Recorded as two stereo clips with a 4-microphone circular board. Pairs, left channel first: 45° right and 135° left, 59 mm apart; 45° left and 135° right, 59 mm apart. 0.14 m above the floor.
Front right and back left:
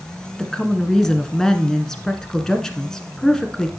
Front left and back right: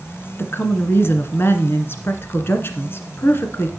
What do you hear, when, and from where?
0.4 s a woman speaking: 35° left, 1.4 m